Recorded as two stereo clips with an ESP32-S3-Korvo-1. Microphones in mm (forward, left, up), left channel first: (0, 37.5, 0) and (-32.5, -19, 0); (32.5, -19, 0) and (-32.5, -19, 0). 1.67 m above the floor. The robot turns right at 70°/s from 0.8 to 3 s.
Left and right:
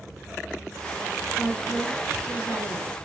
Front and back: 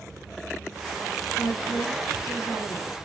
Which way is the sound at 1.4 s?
55° right.